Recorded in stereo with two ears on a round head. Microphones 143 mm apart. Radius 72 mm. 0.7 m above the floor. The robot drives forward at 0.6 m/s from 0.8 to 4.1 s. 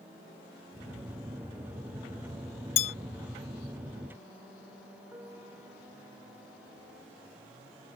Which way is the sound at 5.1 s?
15° right (ahead or behind).